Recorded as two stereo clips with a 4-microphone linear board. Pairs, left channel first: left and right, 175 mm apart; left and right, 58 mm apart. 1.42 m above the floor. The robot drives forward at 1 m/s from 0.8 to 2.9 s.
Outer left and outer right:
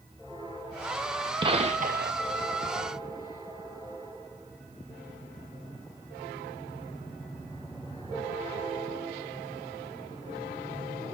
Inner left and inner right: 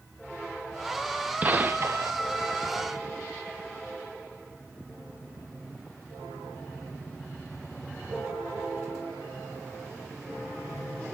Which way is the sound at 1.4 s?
30° right (ahead or behind).